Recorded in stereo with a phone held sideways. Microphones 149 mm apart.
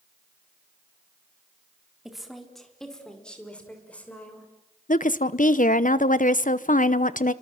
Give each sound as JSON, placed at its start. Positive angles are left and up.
{"t": 2.0, "sound": "a woman speaking", "side_deg": 0, "distance_m": 4.0}
{"t": 4.9, "sound": "a woman speaking", "side_deg": 60, "distance_m": 0.9}